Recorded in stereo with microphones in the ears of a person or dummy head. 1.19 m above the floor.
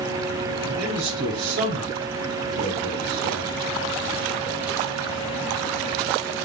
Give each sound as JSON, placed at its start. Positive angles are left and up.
{"t": 0.6, "sound": "a man speaking", "side_deg": -70, "distance_m": 5.0}